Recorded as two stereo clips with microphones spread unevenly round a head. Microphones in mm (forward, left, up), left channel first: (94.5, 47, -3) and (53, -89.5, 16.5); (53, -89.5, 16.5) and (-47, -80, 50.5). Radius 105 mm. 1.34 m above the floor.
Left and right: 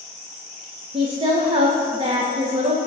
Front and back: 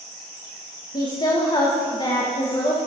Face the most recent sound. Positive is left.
turn(degrees=-50)